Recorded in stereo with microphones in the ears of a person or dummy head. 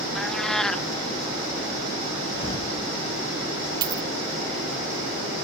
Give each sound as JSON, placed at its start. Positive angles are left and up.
{"t": 0.1, "sound": "a cat meowing", "side_deg": 5, "distance_m": 0.9}
{"t": 2.3, "sound": "a thud", "side_deg": 20, "distance_m": 0.8}
{"t": 3.8, "sound": "a dropped coin", "side_deg": -25, "distance_m": 0.7}